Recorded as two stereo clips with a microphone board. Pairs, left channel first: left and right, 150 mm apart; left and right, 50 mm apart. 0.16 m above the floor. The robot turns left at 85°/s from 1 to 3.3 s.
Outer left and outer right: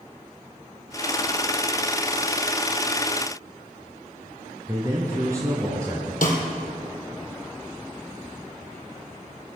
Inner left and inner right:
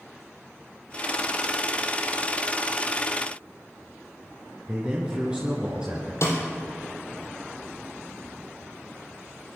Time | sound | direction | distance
4.7 | a man speaking | 20° right (ahead or behind) | 2.5 m
6.2 | a snare drum | 65° left (ahead or behind) | 3 m